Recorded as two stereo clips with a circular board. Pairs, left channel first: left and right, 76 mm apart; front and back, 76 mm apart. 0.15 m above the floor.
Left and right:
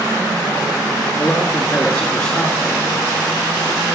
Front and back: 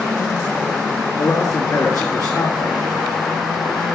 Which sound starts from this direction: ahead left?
A man speaking, at 1.2 s.